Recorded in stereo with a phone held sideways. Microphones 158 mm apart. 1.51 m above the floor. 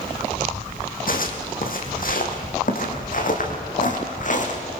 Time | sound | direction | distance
1.1 | footsteps | 60° left (ahead or behind) | 3 m